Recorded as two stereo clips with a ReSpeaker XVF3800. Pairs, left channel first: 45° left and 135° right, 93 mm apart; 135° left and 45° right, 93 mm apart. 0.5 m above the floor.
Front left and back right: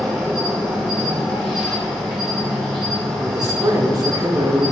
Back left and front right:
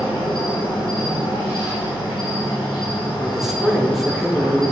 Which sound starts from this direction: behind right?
A man speaking, at 3.2 s.